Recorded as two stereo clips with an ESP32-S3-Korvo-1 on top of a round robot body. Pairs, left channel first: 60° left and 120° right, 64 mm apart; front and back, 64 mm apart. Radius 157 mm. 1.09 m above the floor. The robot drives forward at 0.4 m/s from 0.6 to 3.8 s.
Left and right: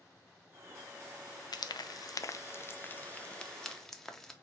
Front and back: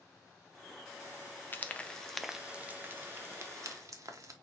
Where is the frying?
60° left, 0.6 m; by 4.3 s 145° left, 0.8 m.